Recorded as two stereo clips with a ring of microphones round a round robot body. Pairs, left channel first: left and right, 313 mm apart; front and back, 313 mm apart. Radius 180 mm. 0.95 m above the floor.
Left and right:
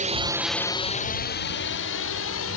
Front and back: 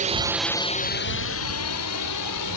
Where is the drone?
135° right; by 2.6 s 40° left.